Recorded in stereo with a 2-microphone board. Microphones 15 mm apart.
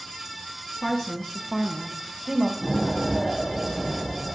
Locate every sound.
0.8 s a woman speaking: 20° left (ahead or behind), 0.9 m; by 2.5 s 15° right (ahead or behind), 0.9 m
2.6 s an explosion: 80° left, 5 m